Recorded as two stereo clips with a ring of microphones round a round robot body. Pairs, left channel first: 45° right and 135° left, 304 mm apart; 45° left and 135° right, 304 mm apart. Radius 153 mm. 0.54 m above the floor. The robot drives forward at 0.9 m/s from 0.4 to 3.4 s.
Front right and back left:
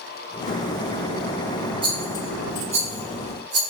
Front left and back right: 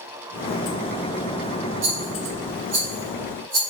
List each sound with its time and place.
1.8 s a rattle: 150° right, 4.5 m; by 3.6 s 155° right, 6 m